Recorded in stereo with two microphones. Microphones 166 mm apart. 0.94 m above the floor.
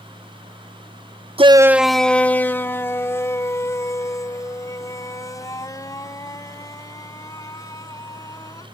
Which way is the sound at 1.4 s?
35° right (ahead or behind).